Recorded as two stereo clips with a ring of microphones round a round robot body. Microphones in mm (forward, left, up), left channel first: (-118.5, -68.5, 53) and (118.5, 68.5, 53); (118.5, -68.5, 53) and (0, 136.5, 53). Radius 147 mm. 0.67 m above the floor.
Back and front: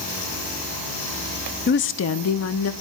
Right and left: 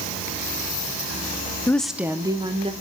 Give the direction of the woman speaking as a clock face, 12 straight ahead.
4 o'clock.